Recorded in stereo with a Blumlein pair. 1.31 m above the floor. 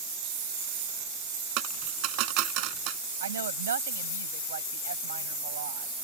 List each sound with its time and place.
1.6 s a dropped coin: 40° right
3.2 s a woman speaking: 65° right